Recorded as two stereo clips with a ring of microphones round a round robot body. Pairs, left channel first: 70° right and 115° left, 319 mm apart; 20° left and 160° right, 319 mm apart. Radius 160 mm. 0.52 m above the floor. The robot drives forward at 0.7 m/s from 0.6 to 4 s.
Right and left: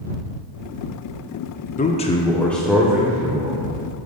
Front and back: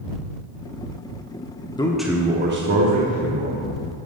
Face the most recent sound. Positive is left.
turn(degrees=-175)